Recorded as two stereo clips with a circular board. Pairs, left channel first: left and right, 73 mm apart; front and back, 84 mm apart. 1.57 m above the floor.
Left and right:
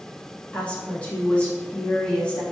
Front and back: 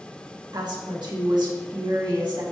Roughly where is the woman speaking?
Behind.